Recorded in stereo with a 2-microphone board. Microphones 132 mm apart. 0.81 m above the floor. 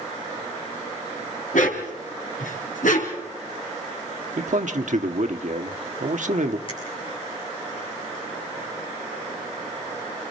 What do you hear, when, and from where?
1.5 s a dog barking: 80° left, 3 m; by 3.2 s 85° left, 4.5 m
4.4 s a man speaking: 70° right (ahead or behind), 1.3 m
6.7 s a finger snap: 45° left (ahead or behind), 6.5 m